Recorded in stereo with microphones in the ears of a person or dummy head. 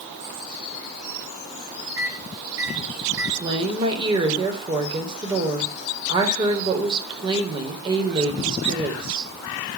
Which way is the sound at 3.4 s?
25° right (ahead or behind).